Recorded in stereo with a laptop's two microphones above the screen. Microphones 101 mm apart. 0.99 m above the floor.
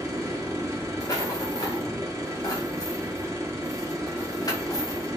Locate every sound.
0.0 s a machine running: 30° right (ahead or behind), 1.1 m
1.0 s a rattle: 40° left (ahead or behind), 1.0 m